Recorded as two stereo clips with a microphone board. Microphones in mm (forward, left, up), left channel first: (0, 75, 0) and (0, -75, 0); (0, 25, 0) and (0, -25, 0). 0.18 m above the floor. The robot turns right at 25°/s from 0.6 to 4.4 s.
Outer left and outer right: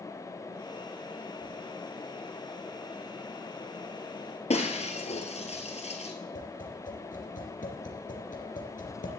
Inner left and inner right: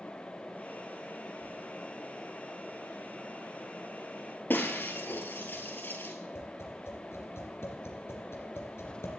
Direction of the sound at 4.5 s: 45° left (ahead or behind).